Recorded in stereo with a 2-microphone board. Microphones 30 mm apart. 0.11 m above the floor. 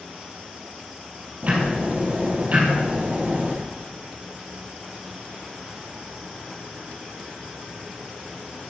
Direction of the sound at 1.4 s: 45° right (ahead or behind).